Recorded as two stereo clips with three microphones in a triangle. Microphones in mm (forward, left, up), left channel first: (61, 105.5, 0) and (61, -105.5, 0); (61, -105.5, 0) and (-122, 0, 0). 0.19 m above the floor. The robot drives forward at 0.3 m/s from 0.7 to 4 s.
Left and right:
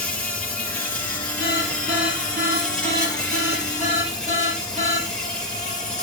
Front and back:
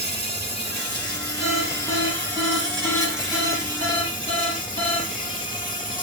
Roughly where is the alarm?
Behind right.